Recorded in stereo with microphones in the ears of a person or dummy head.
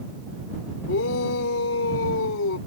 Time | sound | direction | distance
0.9 | a shout | 65° left (ahead or behind) | ?